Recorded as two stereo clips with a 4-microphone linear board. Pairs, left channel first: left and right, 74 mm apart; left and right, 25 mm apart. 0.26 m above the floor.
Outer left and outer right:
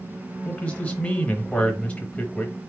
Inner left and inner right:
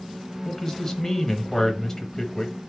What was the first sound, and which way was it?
A man speaking, 15° left (ahead or behind).